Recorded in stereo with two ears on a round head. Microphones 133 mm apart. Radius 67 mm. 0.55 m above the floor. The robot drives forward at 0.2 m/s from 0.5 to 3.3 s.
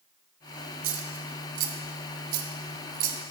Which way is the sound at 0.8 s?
60° right (ahead or behind).